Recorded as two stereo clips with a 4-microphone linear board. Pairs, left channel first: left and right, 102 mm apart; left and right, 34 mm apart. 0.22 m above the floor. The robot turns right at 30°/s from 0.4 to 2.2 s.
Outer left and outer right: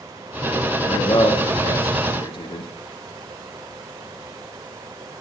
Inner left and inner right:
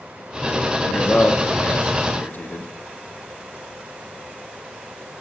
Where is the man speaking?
65° left (ahead or behind), 3 m; by 2.7 s 60° left (ahead or behind), 3 m.